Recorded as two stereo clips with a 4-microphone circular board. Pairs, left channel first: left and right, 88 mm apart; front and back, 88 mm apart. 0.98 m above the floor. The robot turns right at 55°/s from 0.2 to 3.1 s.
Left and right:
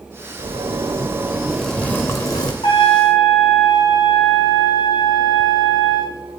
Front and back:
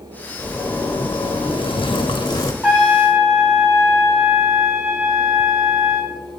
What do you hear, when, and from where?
0.4 s a zipper: 65° right, 1.2 m; by 2.5 s 50° left, 1.2 m
2.6 s a trumpet: 100° left, 2.5 m; by 6.1 s 125° left, 2.5 m